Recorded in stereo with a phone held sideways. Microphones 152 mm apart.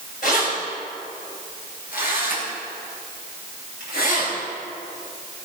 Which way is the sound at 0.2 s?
65° left (ahead or behind).